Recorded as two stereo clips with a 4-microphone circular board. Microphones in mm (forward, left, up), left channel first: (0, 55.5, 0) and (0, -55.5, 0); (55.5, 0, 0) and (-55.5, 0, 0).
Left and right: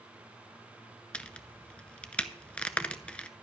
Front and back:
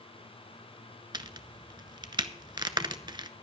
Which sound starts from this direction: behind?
A crack, at 1.1 s.